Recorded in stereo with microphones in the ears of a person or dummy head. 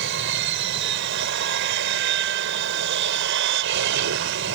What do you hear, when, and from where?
0.0 s an aircraft: 60° right (ahead or behind)